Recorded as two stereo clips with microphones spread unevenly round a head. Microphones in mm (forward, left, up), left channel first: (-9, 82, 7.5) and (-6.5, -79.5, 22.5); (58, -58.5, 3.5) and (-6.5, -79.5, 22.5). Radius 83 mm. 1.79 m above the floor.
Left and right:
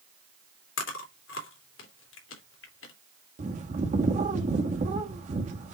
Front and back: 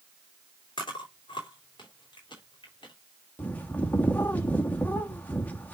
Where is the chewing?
80° left, 2.5 m.